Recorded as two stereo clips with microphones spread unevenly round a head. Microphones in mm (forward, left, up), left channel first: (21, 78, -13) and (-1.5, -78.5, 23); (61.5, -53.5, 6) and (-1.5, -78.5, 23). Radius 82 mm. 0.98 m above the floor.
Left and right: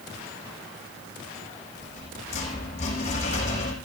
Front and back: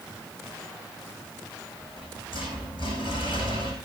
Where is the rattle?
140° left, 7.5 m.